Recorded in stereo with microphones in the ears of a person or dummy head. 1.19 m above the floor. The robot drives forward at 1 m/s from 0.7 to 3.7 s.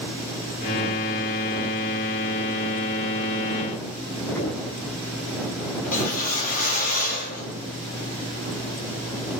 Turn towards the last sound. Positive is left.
turn(degrees=50)  # may be behind; listen again after turning